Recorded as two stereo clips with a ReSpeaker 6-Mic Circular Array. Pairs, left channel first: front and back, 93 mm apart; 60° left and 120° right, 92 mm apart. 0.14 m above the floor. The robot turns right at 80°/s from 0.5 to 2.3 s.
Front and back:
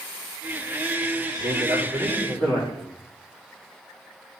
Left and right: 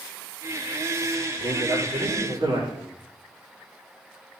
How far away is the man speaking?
About 6 m.